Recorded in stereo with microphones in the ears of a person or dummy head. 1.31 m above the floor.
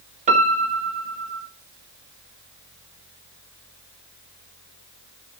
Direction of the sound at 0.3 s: 40° right (ahead or behind).